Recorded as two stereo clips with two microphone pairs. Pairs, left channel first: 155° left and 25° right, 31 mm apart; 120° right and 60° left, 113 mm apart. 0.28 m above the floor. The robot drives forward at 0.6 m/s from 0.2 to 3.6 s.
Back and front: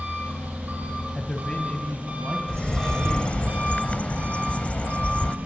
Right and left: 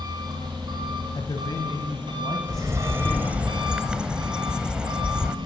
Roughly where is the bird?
Left.